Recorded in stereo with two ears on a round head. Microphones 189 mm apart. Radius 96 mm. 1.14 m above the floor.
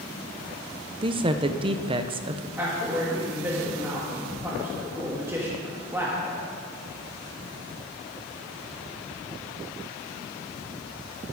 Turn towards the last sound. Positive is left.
turn(degrees=-10)  # may be behind; listen again after turning